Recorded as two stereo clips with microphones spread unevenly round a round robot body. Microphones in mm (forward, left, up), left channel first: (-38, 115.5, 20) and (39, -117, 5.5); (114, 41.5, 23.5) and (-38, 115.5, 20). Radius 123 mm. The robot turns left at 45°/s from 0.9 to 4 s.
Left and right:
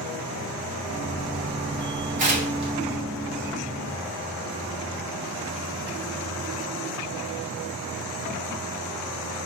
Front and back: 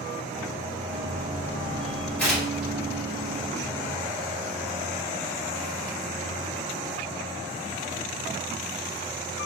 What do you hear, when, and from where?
2.2 s tearing paper: 110° right, 1.3 m; by 2.7 s 130° right, 1.3 m